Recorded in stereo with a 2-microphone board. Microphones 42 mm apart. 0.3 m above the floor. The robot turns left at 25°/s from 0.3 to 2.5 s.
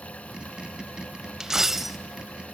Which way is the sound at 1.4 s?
15° right (ahead or behind).